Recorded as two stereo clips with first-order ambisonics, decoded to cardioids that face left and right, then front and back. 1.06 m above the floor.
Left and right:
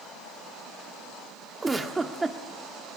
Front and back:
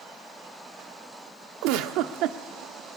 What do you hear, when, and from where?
1.6 s a giggle: 165° right, 1.1 m